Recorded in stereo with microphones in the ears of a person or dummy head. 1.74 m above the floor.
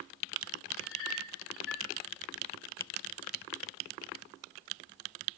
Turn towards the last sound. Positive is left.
turn(degrees=75)  # may be behind; listen again after turning